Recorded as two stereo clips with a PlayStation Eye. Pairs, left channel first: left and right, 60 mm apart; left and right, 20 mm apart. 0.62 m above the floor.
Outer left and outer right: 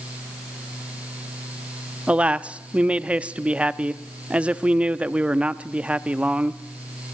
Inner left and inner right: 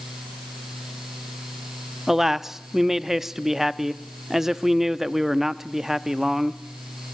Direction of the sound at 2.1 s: 20° right (ahead or behind).